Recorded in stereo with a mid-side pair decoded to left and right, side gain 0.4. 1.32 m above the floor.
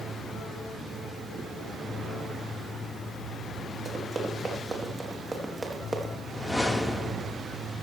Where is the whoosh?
15° left, 2.5 m.